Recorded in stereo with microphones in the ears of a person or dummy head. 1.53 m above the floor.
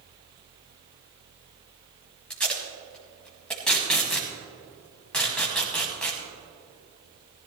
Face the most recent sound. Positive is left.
turn(degrees=0)  # may be behind; listen again after turning